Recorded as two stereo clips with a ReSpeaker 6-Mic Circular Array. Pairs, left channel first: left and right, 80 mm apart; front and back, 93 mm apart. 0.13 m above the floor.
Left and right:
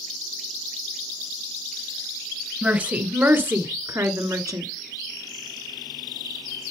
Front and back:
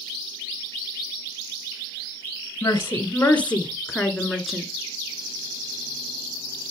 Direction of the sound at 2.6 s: 35° right.